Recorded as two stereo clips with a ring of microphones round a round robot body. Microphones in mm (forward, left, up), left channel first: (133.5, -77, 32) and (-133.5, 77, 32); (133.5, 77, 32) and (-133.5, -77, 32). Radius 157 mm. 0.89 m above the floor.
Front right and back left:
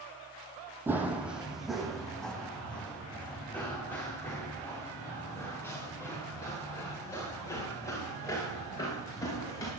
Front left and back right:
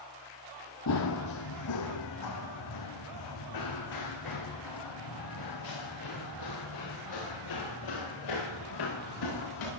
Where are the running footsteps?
65° left, 2 m; by 9.7 s 50° left, 11.5 m.